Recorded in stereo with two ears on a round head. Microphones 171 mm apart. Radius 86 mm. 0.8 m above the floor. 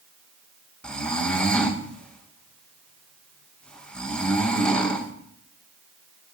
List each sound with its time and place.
0.8 s snoring: 5° left (ahead or behind), 1.9 m